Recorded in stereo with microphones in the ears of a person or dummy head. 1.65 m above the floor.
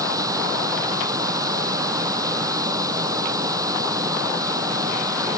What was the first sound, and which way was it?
A machine running, 15° right (ahead or behind).